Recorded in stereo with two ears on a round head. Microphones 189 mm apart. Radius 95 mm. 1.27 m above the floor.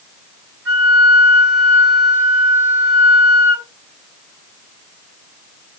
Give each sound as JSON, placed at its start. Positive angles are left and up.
{"t": 0.7, "sound": "a flute", "side_deg": -65, "distance_m": 6.0}